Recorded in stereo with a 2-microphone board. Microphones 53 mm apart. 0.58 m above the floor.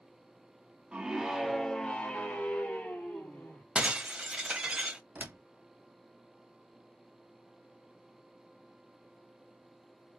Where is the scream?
20° right (ahead or behind), 0.7 m; by 3.6 s 35° left (ahead or behind), 1.4 m.